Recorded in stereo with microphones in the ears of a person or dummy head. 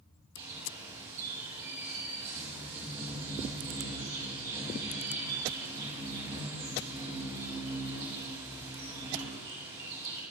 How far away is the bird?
About 7 m.